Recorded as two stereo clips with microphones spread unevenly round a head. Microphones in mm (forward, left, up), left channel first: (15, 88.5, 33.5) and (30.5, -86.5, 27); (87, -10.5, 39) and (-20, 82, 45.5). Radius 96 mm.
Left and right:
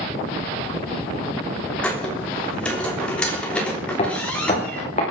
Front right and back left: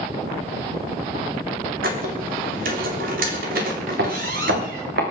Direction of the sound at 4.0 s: 155° left.